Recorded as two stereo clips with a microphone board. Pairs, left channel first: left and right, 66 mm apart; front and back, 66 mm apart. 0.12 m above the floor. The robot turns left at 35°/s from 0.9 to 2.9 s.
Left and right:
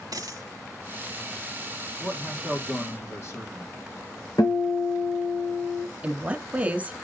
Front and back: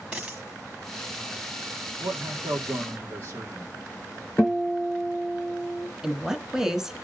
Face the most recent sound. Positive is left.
turn(degrees=-110)